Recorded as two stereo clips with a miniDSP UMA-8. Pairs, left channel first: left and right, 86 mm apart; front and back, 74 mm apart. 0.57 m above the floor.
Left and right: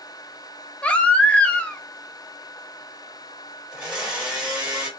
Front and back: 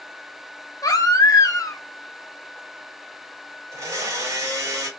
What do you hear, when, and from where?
0.8 s a baby crying: 15° left, 0.5 m
3.7 s a blender: 175° right, 1.4 m